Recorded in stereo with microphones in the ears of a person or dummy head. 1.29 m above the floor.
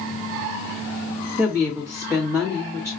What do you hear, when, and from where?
1.4 s a woman speaking: 10° right (ahead or behind), 1.4 m